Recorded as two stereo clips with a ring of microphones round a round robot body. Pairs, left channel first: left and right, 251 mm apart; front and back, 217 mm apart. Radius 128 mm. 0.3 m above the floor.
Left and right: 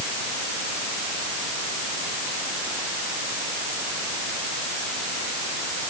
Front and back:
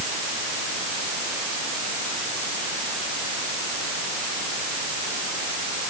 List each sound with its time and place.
Only background noise.